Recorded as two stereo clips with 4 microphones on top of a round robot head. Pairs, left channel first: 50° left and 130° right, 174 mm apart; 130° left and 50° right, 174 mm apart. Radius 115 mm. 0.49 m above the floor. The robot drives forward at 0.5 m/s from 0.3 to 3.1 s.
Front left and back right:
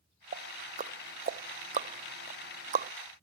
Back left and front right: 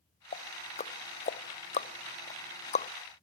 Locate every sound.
0.3 s ticking: straight behind